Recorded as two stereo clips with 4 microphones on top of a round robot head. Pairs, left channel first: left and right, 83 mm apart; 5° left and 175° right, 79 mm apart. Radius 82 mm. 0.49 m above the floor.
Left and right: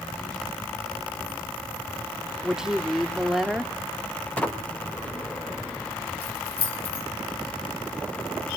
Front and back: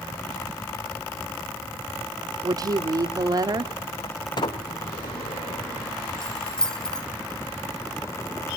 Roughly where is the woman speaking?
Behind.